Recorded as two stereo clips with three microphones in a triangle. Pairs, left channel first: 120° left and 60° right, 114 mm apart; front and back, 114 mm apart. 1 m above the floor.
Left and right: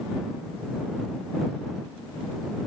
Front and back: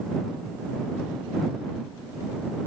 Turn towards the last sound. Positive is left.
No sound to turn to.